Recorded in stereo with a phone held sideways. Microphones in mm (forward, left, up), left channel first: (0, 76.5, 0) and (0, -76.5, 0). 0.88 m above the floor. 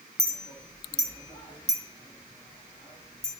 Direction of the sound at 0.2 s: 25° left (ahead or behind).